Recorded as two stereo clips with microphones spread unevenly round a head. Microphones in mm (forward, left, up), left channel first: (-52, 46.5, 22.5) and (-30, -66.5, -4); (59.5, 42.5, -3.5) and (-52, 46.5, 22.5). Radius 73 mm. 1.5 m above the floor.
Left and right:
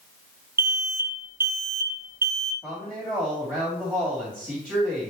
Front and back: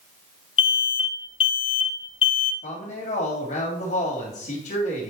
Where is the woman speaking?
Straight ahead, 3 m.